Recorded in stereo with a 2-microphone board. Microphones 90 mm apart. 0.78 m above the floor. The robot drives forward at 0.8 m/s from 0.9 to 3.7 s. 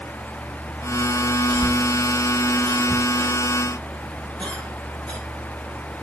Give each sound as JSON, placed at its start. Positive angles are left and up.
{"t": 1.5, "sound": "a cough", "side_deg": 15, "distance_m": 5.5}